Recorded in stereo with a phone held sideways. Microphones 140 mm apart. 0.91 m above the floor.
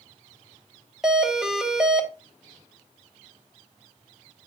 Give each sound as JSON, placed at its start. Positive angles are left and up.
{"t": 1.0, "sound": "a doorbell", "side_deg": -5, "distance_m": 1.0}